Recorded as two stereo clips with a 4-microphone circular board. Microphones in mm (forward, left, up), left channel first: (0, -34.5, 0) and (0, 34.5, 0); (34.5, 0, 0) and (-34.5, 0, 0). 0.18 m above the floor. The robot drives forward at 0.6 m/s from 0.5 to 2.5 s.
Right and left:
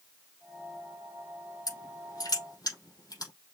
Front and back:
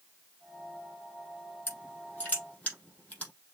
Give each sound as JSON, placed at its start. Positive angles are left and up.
{"t": 1.7, "sound": "crushing", "azimuth_deg": -60, "distance_m": 4.5}